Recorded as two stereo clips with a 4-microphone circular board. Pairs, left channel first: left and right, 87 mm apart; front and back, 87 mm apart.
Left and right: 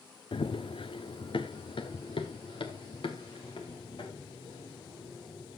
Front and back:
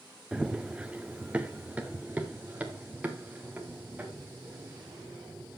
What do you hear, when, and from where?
0.3 s running footsteps: 100° left, 0.8 m; by 5.6 s 110° left, 4 m